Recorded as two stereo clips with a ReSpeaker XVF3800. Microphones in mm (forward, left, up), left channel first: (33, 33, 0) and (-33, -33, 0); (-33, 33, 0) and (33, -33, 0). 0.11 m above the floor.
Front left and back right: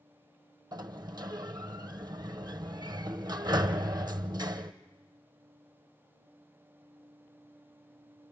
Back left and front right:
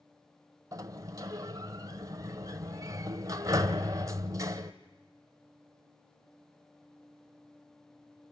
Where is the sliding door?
95° right, 1.1 m.